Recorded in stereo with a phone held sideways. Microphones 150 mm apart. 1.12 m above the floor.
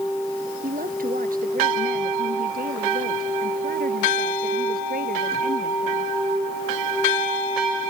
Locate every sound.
0.6 s a woman speaking: 70° right (ahead or behind); by 6.1 s 85° right